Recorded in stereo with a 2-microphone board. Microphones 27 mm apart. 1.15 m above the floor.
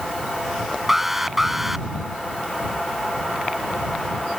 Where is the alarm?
10° right (ahead or behind).